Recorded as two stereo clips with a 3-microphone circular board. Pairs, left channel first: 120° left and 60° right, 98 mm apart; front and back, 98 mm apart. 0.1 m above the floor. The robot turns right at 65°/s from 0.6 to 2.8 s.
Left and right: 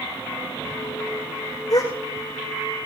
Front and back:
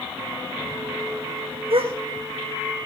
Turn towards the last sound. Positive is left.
turn(degrees=-125)